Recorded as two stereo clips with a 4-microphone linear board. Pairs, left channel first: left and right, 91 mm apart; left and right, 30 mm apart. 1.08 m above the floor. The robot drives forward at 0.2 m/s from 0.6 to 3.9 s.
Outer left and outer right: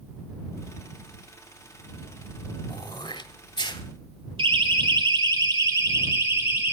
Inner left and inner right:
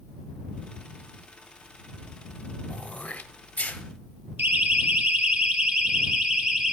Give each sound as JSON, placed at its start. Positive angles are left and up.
{"t": 2.7, "sound": "throat clearing", "side_deg": 55, "distance_m": 1.7}
{"t": 4.4, "sound": "a siren", "side_deg": -70, "distance_m": 2.5}